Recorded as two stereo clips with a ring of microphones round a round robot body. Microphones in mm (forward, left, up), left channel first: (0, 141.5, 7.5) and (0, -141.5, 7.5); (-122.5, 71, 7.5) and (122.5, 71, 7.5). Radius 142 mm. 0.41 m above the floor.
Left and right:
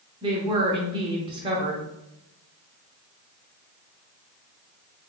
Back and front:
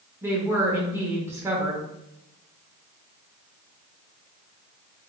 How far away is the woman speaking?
About 0.7 m.